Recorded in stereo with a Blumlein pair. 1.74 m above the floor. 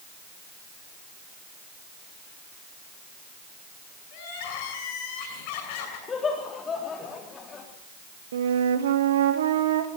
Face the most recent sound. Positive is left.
turn(degrees=-60)